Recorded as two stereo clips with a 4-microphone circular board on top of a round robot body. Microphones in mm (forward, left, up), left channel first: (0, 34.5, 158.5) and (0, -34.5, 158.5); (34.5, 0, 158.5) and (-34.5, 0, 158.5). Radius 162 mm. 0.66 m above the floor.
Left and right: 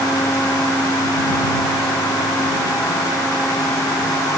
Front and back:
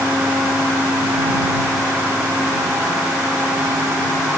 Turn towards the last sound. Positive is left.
No sound to turn to.